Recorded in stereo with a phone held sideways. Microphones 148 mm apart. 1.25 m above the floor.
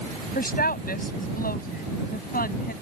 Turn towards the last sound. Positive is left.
turn(degrees=85)